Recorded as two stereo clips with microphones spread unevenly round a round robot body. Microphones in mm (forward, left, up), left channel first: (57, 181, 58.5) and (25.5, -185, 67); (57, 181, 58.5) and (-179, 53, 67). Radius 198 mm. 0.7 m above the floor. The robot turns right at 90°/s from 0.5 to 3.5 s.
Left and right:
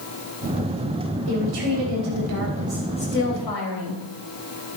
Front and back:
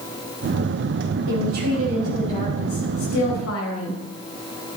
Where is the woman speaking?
145° right, 4.5 m; by 4.0 s 60° left, 4.5 m.